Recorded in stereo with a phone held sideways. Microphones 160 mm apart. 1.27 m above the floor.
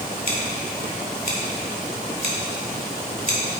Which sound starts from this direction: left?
Scissors, at 0.3 s.